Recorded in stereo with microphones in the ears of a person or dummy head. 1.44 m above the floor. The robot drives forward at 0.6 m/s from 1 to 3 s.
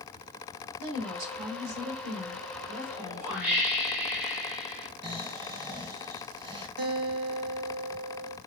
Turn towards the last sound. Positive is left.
turn(degrees=-50)  # may be behind; listen again after turning